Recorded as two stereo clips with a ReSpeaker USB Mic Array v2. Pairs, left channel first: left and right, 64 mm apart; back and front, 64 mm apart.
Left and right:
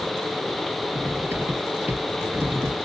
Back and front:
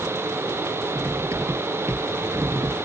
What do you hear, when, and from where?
0.9 s cutlery clinking: 40° right